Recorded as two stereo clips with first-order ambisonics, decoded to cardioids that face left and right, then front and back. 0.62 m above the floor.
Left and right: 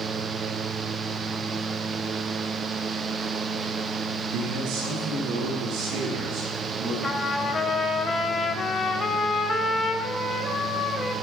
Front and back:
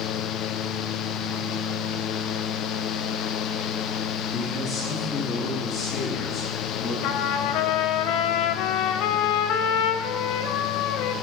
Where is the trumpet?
20° left, 0.7 m.